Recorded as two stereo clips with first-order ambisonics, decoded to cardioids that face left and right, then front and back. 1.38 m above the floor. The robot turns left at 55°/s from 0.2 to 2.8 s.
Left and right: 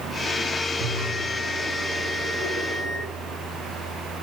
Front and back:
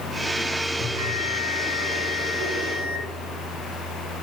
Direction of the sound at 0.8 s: 95° right.